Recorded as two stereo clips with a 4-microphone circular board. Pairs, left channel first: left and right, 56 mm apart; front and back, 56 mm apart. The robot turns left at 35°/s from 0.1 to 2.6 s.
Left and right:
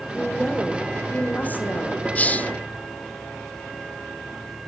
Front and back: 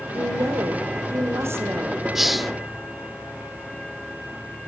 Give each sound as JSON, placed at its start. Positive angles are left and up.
{"t": 0.1, "sound": "a woman speaking", "azimuth_deg": -165, "distance_m": 4.5}
{"t": 2.1, "sound": "a hiss", "azimuth_deg": 105, "distance_m": 0.9}